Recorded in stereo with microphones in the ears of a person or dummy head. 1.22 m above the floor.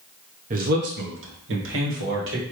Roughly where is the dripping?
No dripping in this recording.